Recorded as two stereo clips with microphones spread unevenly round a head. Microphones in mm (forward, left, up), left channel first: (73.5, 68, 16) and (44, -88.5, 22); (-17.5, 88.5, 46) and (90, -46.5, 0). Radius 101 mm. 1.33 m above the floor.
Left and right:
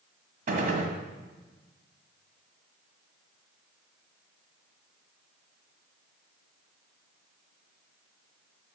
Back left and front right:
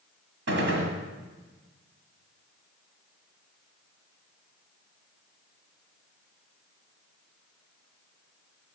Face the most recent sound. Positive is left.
turn(degrees=-90)